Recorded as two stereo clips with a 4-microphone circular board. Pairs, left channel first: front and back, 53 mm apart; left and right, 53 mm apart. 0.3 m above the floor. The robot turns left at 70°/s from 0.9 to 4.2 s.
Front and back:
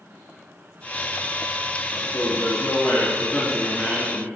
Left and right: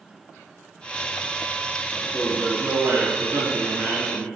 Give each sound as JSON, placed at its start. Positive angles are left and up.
{"t": 1.9, "sound": "a man speaking", "azimuth_deg": 25, "distance_m": 2.5}